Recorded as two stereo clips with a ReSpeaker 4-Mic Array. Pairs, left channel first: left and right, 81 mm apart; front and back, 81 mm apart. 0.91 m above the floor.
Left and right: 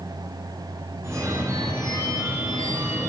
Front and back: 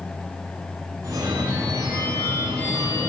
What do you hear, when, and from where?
1.0 s a phone ringing: 140° right, 1.6 m